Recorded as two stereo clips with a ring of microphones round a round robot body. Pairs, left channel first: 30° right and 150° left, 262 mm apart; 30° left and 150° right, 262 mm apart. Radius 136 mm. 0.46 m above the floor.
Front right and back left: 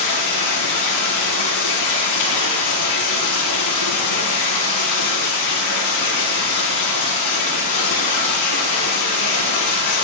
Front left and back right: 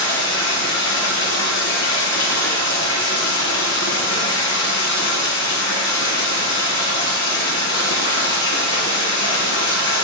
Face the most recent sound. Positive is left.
turn(degrees=-15)